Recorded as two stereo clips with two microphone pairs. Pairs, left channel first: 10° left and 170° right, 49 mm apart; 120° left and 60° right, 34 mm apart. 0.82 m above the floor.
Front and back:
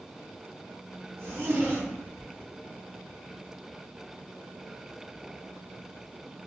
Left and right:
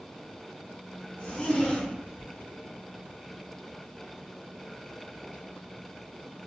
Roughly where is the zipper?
Behind.